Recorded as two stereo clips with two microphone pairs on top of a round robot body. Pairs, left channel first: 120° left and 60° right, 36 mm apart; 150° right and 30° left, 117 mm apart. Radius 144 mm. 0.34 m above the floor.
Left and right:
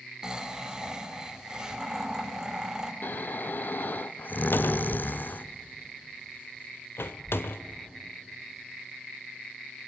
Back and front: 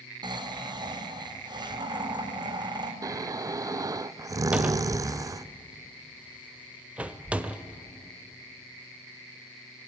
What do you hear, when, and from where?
0.2 s snoring: straight ahead, 2.0 m
3.0 s snoring: 85° left, 0.5 m
4.5 s a cupboard door: 105° left, 0.9 m